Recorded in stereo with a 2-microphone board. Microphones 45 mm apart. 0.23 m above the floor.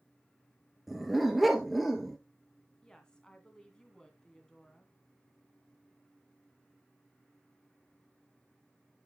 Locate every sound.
0.9 s a dog barking: centre (ahead or behind), 1.6 m
2.8 s a woman speaking: 15° left (ahead or behind), 2.5 m